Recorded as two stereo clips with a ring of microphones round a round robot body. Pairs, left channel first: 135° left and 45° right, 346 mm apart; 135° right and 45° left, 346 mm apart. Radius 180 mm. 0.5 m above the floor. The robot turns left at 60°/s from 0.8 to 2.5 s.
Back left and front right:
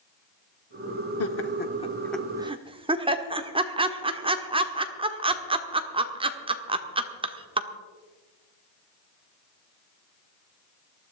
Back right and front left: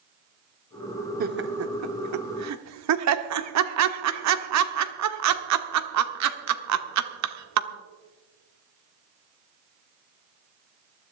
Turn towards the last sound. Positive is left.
turn(degrees=25)